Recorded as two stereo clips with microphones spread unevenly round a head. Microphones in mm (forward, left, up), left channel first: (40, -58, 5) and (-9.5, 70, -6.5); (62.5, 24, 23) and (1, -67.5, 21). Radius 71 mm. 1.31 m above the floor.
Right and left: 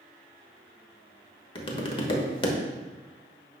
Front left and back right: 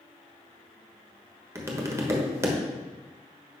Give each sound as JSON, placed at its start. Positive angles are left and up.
{"t": 1.6, "sound": "tapping", "azimuth_deg": -75, "distance_m": 1.2}